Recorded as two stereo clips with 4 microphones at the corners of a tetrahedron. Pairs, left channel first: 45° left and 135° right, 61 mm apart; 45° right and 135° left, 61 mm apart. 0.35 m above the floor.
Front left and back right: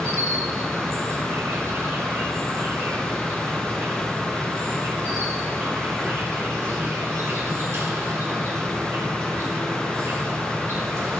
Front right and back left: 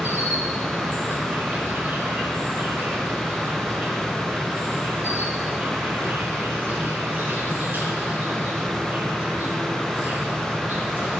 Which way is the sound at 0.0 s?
175° right.